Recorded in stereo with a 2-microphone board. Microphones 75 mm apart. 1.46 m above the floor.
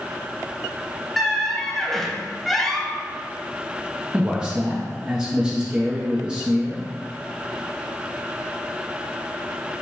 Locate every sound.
1.2 s a squeak: centre (ahead or behind), 0.6 m
4.1 s a man speaking: 10° right (ahead or behind), 0.6 m